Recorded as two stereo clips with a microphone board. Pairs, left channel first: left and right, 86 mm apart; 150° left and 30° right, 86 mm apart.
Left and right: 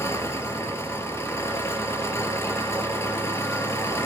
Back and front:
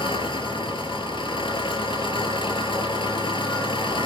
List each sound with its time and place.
0.0 s an engine running: 145° left, 3.5 m